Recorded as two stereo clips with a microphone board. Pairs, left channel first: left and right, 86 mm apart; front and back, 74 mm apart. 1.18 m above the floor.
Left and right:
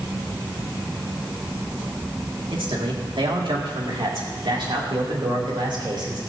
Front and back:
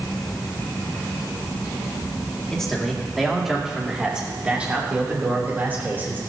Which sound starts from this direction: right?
A man speaking, at 2.5 s.